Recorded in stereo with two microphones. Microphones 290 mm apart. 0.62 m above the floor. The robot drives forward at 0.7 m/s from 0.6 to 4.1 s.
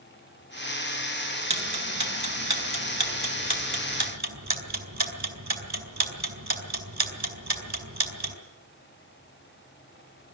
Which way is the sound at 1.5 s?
70° right (ahead or behind).